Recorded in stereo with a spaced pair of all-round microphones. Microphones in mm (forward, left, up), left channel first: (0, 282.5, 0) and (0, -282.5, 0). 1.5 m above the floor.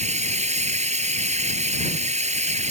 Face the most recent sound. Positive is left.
turn(degrees=-10)  # may be behind; listen again after turning